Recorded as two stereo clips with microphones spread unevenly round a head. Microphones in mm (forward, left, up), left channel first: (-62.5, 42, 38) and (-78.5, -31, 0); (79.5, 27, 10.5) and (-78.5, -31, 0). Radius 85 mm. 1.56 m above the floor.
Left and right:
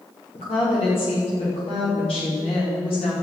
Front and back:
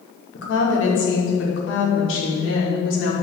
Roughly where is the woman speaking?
Ahead left.